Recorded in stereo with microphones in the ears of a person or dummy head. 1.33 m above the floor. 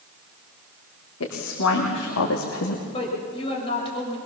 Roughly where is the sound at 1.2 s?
Left.